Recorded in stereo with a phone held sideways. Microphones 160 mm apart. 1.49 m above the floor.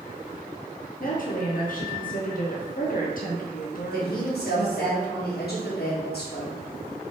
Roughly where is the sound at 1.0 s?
Left.